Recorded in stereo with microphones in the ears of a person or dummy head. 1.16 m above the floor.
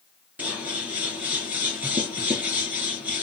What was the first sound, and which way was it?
Scissors, 5° right (ahead or behind).